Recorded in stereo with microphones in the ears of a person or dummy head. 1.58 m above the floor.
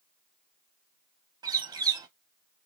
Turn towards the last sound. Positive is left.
turn(degrees=-25)  # may be behind; listen again after turning